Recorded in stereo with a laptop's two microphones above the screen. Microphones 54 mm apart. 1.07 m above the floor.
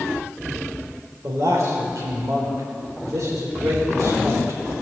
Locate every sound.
1.2 s a man speaking: 80° right, 3.5 m